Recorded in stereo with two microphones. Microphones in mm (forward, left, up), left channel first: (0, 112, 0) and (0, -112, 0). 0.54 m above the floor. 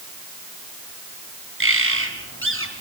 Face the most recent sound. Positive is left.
turn(degrees=-70)  # may be behind; listen again after turning